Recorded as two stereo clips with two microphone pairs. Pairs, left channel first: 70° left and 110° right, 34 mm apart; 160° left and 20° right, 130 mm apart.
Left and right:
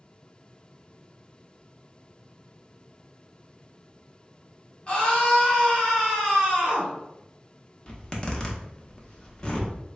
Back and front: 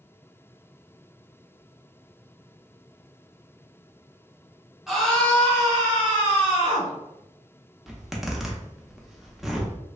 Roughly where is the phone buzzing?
No phone buzzing in this recording.